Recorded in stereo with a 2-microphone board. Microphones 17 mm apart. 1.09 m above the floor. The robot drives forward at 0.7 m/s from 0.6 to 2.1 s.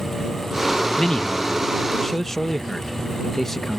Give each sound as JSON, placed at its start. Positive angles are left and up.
{"t": 1.0, "sound": "a man speaking", "side_deg": 50}